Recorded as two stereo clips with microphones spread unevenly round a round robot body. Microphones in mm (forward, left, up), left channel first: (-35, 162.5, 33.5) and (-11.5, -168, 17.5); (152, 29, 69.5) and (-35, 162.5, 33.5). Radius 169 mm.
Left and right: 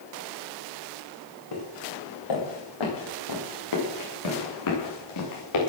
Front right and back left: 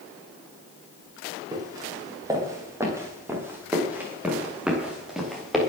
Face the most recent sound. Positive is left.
turn(degrees=55)